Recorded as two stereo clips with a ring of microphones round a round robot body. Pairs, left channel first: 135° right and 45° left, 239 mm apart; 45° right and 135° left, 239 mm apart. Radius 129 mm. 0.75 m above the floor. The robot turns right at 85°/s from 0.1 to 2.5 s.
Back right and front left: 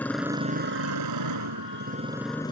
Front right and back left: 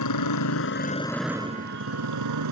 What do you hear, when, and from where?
0.0 s a motorcycle: 50° right; by 2.5 s 150° left